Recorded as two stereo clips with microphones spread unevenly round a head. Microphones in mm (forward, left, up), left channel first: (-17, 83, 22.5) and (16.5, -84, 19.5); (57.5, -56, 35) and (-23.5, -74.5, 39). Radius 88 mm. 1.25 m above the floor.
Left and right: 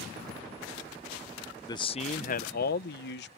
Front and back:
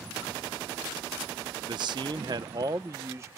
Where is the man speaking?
170° left; by 3.3 s 125° left.